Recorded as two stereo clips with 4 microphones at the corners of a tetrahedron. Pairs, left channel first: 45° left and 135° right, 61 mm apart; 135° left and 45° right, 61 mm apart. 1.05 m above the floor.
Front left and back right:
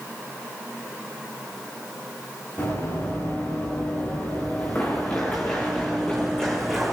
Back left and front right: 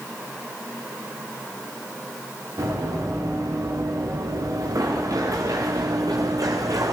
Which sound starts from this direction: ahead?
Running footsteps, at 2.6 s.